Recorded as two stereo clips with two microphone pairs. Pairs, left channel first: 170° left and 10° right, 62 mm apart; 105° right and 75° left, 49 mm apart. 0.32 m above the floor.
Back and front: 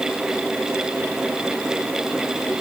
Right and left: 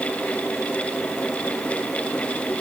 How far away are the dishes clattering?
I don't hear dishes clattering.